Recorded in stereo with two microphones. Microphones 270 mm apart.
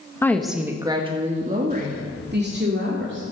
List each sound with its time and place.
0.2 s a woman speaking: 10° left (ahead or behind), 1.1 m; by 3.2 s 45° right (ahead or behind), 3 m